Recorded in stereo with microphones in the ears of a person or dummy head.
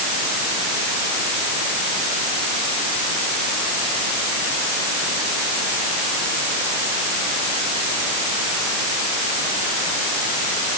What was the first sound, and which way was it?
Only background noise.